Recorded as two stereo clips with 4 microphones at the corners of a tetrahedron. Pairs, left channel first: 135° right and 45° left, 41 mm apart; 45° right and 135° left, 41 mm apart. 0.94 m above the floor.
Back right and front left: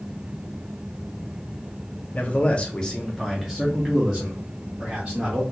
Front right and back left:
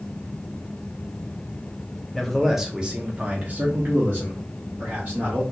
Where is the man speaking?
120° right, 0.7 m; by 5.4 s 110° left, 1.7 m.